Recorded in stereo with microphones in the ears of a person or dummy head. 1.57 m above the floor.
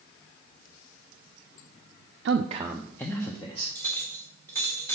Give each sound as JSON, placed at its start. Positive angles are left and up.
{"t": 2.2, "sound": "a man speaking", "side_deg": -60, "distance_m": 0.5}
{"t": 3.8, "sound": "a clink", "side_deg": 15, "distance_m": 2.0}